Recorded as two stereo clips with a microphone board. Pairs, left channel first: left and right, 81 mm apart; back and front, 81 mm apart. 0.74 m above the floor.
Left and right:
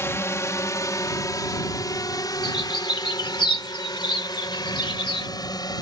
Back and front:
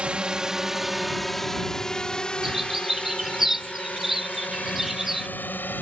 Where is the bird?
85° left.